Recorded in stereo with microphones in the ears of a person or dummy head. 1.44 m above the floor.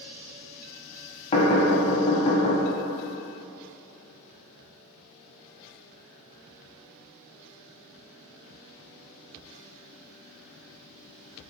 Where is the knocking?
30° left (ahead or behind), 0.7 m.